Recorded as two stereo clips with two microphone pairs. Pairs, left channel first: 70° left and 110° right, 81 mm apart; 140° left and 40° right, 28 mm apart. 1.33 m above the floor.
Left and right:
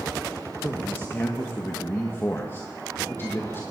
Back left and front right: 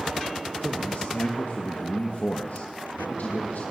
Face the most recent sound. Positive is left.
turn(degrees=135)